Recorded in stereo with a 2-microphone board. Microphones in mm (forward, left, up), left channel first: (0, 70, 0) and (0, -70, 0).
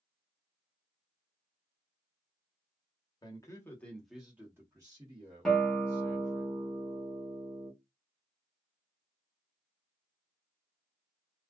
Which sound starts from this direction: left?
A man speaking, at 3.2 s.